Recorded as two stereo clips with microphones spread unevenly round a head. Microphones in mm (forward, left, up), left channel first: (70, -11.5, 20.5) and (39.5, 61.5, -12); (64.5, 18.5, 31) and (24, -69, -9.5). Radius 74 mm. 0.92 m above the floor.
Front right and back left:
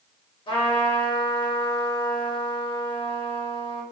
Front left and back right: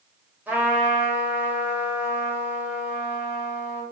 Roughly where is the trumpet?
Ahead right.